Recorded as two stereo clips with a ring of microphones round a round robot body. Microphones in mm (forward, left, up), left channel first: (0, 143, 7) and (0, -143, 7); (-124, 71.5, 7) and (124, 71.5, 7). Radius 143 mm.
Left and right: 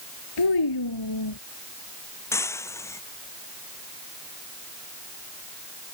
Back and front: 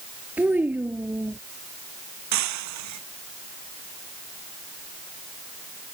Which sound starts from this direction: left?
A child speaking, at 0.4 s.